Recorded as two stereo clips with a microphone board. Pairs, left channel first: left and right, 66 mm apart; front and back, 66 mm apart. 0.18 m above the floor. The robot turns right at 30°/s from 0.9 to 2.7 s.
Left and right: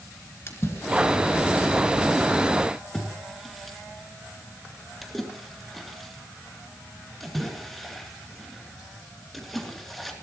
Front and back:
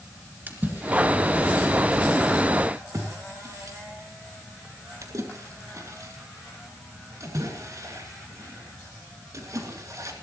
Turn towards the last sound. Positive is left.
turn(degrees=180)